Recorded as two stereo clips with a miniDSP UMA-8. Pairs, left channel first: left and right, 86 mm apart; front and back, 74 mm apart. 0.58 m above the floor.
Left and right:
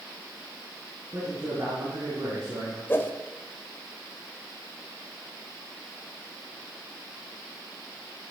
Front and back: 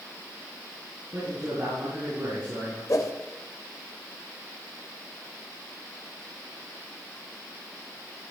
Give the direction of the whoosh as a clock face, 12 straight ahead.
11 o'clock.